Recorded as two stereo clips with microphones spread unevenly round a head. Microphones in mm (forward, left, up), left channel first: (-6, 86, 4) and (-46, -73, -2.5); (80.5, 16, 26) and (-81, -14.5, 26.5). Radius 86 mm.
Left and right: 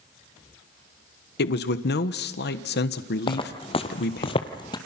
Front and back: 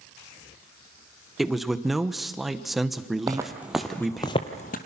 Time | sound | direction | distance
1.4 | a man speaking | 100° left | 1.1 m
3.3 | footsteps | 125° left | 2 m